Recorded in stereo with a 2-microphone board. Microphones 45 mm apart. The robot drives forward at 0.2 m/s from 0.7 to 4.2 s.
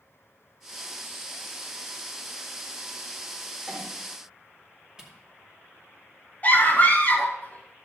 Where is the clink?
10° left (ahead or behind), 4.5 m.